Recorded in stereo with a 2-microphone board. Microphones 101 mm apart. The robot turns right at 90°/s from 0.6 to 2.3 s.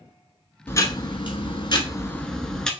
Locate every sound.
0.7 s ticking: 25° left, 0.8 m; by 2.7 s 170° left, 0.8 m